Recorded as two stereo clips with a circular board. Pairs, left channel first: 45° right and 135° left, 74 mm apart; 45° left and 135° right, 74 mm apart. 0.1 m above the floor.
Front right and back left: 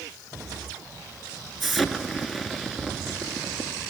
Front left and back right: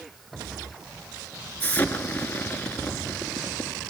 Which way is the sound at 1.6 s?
50° left.